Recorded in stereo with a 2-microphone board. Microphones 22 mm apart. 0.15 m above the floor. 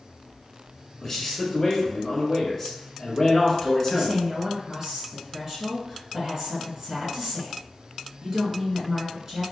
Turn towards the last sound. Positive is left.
turn(degrees=-30)  # may be behind; listen again after turning